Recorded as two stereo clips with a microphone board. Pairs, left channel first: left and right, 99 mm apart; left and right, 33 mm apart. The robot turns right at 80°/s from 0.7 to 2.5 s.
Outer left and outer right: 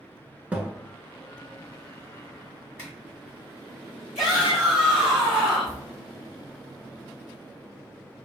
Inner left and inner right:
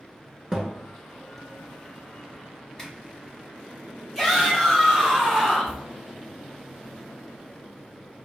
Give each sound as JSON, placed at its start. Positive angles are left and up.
{"t": 0.5, "sound": "a thud", "side_deg": -15, "distance_m": 0.6}
{"t": 2.8, "sound": "a zipper", "side_deg": 15, "distance_m": 1.8}
{"t": 4.2, "sound": "a shout", "side_deg": -5, "distance_m": 1.5}